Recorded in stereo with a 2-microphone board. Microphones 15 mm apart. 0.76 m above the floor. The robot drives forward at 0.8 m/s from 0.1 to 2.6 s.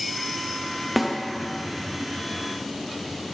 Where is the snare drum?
5° right (ahead or behind), 0.7 m; by 1.2 s 10° right (ahead or behind), 0.6 m.